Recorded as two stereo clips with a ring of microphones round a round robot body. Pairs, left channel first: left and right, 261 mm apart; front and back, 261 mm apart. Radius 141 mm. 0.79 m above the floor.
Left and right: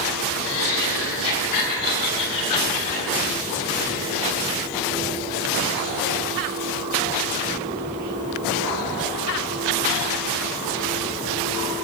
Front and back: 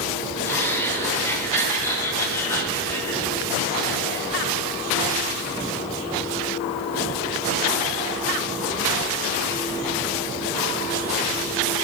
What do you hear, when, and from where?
0.4 s laughter: 80° left, 4 m